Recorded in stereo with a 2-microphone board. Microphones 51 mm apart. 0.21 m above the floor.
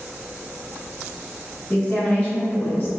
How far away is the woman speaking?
About 1.2 m.